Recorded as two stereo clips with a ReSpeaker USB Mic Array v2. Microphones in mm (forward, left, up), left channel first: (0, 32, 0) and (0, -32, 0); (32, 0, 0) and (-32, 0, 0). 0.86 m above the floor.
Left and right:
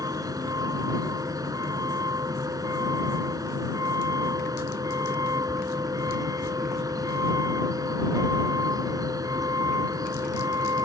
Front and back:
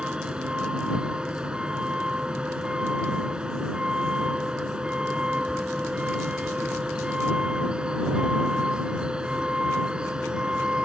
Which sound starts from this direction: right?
A vehicle, at 0.0 s.